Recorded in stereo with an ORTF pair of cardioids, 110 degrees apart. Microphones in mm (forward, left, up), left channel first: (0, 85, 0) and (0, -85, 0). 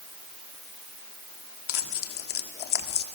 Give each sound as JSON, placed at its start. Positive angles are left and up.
{"t": 1.7, "sound": "tearing paper", "azimuth_deg": 65, "distance_m": 1.5}